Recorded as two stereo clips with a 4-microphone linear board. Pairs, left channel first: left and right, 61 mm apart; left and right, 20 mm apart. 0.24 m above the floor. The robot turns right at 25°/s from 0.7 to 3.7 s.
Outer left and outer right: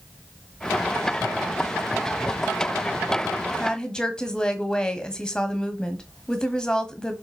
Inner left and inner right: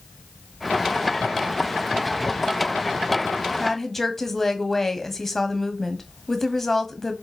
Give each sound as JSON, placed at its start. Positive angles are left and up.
{"t": 3.6, "sound": "a woman speaking", "side_deg": 15, "distance_m": 1.3}